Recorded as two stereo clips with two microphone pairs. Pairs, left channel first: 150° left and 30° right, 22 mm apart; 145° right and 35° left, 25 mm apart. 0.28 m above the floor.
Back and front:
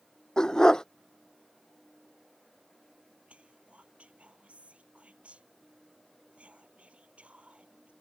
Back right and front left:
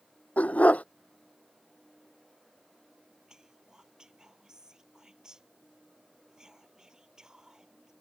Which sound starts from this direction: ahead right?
Whispering, at 3.3 s.